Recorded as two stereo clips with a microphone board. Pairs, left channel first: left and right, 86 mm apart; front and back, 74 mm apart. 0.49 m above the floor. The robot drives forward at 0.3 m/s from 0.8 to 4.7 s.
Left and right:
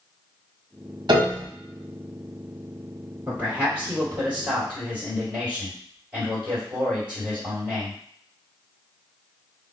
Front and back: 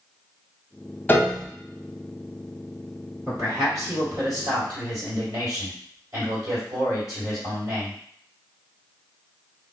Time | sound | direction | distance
1.1 | a piano | 65° right | 0.6 m
3.3 | a man speaking | 155° right | 2.0 m